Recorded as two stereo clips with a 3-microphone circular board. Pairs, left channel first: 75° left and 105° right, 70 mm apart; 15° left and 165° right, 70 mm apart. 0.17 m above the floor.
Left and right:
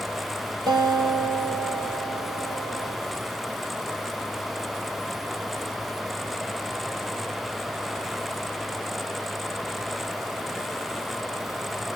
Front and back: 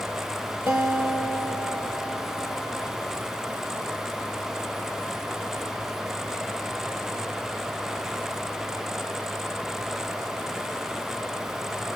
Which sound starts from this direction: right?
A guitar, at 0.7 s.